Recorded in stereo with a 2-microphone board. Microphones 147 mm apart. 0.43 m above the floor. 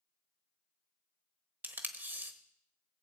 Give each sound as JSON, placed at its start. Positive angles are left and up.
{"t": 1.6, "sound": "tape being pulled", "side_deg": -15, "distance_m": 1.1}